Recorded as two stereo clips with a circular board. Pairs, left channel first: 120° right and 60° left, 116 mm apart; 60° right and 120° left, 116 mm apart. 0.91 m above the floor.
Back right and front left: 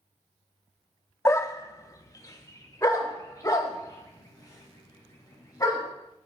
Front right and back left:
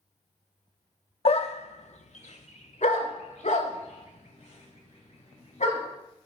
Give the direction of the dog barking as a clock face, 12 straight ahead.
2 o'clock.